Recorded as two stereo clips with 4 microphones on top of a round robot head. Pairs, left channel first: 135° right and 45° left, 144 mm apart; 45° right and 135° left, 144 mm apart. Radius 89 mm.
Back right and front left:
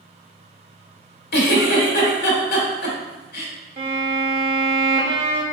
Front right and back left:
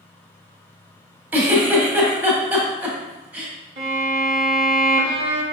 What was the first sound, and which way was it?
A giggle, 145° right.